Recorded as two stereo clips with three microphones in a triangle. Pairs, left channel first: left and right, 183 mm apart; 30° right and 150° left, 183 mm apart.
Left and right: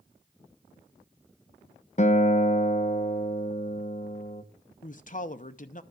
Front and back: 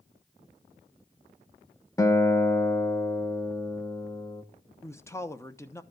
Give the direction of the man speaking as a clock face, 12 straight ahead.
11 o'clock.